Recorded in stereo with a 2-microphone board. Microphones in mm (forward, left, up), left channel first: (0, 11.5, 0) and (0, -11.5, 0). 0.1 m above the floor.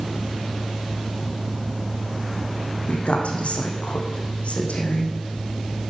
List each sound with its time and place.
2.9 s a woman speaking: 70° left (ahead or behind), 4.5 m